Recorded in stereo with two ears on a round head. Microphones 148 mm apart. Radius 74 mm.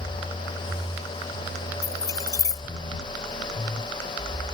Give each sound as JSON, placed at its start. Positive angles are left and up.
{"t": 1.8, "sound": "keys jangling", "side_deg": 20}